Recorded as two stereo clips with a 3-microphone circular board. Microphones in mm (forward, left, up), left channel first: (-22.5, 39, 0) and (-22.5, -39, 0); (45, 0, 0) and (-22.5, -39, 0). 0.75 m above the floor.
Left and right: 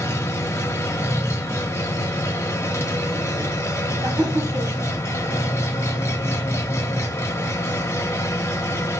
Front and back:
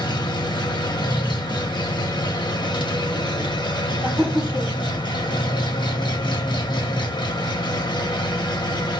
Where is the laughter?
75° right, 1.9 m.